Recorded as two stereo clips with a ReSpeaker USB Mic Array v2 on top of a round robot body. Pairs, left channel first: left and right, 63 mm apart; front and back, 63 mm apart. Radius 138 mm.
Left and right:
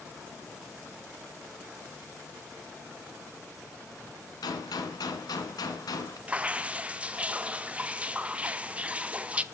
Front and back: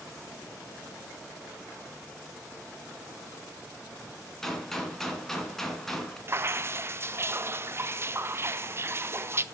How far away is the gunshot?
About 2 m.